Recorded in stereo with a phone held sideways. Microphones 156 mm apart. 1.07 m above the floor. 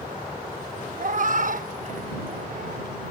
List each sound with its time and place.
1.0 s a cat meowing: 55° right (ahead or behind)